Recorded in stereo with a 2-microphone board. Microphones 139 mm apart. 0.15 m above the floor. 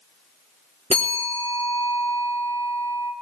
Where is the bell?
50° right (ahead or behind), 4 m.